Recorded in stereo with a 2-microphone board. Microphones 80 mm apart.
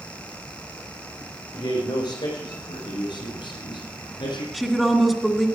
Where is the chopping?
I don't hear chopping.